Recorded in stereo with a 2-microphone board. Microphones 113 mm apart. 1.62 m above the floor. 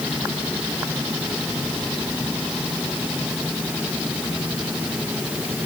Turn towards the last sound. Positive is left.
No sound to turn to.